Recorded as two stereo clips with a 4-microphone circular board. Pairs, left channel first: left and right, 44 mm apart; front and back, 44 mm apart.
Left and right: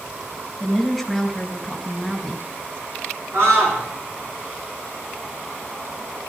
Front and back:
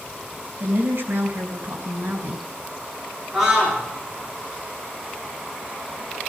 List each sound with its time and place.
0.6 s a woman speaking: 175° right, 3.5 m
3.3 s a scream: 100° right, 9 m